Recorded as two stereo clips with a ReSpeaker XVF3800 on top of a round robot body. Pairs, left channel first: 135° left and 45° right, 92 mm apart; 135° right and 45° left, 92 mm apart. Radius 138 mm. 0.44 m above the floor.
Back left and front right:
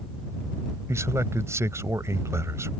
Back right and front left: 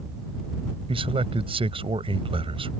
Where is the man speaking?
15° left.